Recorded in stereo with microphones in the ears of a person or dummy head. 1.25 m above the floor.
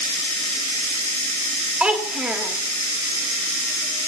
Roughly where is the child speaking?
Centre.